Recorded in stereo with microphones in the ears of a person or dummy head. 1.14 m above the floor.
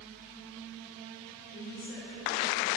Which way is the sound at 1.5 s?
5° left (ahead or behind).